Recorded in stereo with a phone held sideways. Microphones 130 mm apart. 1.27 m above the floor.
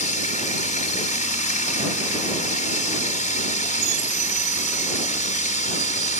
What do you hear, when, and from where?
0.0 s running water: 75° left (ahead or behind)